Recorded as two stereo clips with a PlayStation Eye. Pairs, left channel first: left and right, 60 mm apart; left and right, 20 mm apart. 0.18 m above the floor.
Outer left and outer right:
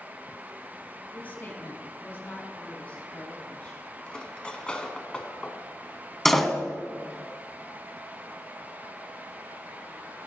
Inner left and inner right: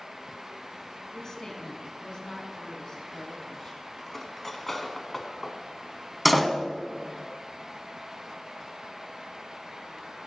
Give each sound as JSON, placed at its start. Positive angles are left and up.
{"t": 1.1, "sound": "a woman speaking", "side_deg": 30, "distance_m": 1.5}
{"t": 4.1, "sound": "cutlery clinking", "side_deg": 15, "distance_m": 0.9}
{"t": 6.2, "sound": "a door slam", "side_deg": 5, "distance_m": 0.8}